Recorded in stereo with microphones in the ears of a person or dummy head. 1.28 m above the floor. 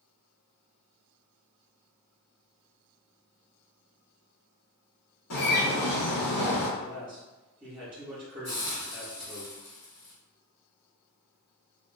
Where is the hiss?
45° left (ahead or behind), 1.5 m.